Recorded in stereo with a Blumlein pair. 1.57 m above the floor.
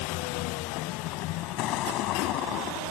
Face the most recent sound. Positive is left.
turn(degrees=35)